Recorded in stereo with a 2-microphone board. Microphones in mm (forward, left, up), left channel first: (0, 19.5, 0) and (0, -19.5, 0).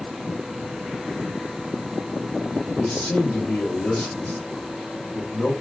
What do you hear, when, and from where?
2.8 s a man speaking: 60° left (ahead or behind), 1.7 m